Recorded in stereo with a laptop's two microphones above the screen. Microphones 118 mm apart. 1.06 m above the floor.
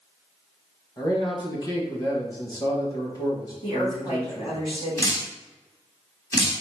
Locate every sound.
1.0 s a man speaking: 35° left (ahead or behind), 1.2 m
3.6 s a woman speaking: 50° left (ahead or behind), 2 m
5.0 s dripping: 30° left (ahead or behind), 1.5 m